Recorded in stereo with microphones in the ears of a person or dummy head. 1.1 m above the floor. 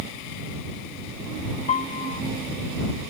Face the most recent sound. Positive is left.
turn(degrees=35)  # may be behind; listen again after turning